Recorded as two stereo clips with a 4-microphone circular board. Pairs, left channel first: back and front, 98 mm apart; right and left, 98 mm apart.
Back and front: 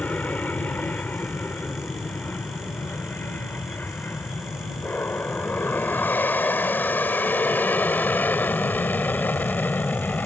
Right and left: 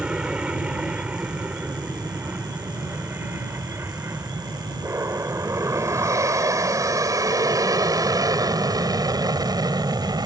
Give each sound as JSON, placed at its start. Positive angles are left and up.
{"t": 0.0, "sound": "an aircraft", "azimuth_deg": 150}